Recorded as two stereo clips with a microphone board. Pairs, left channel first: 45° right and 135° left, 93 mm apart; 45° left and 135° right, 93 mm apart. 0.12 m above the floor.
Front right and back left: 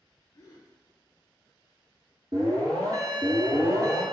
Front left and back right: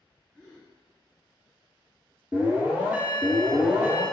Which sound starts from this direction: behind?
An alarm, at 2.3 s.